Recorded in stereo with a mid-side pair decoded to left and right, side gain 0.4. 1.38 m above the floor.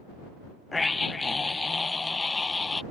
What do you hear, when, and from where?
0.7 s a scream: 25° left